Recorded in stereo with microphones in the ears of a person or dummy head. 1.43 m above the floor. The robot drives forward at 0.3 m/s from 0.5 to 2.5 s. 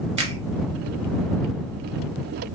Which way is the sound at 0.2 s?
30° right (ahead or behind).